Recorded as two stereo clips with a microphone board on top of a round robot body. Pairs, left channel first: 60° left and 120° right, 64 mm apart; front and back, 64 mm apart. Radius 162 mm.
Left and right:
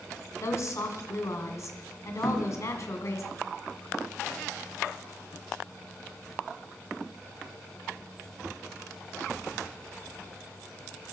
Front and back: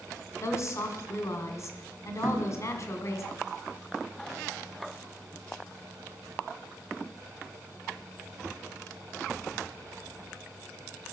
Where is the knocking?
145° left, 2 m.